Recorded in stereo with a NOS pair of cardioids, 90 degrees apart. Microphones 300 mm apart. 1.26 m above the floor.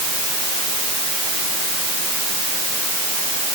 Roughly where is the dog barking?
I don't hear a dog barking.